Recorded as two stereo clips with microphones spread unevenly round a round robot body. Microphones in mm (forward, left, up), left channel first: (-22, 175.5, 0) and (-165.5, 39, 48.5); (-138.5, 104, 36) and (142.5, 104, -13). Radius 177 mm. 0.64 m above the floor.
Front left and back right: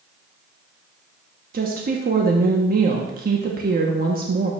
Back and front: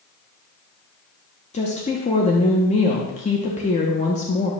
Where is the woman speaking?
115° right, 0.8 m.